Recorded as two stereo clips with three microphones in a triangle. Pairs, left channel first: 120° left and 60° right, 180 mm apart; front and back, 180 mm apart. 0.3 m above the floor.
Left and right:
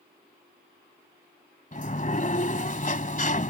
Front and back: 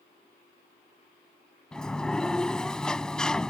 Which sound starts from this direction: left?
A sliding door, at 1.7 s.